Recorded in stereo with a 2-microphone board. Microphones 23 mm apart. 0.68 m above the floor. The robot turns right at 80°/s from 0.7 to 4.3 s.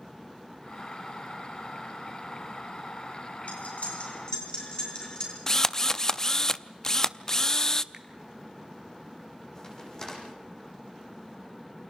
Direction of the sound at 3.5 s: 75° left (ahead or behind).